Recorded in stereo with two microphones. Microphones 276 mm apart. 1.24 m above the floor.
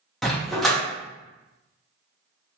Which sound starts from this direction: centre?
A dog barking, at 0.2 s.